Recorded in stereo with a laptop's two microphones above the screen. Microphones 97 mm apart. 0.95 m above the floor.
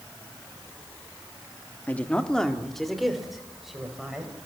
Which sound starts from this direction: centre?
A woman speaking, at 1.9 s.